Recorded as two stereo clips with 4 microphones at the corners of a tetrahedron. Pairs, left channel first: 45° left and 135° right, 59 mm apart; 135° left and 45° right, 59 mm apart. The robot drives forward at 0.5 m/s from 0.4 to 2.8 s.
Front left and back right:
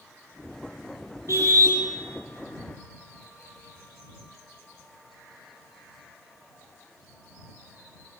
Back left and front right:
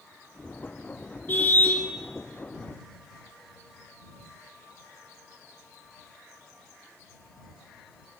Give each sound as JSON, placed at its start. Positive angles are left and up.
{"t": 1.3, "sound": "a car horn", "azimuth_deg": -170, "distance_m": 5.5}